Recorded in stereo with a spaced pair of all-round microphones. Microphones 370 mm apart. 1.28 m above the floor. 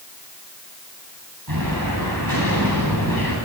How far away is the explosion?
About 10 m.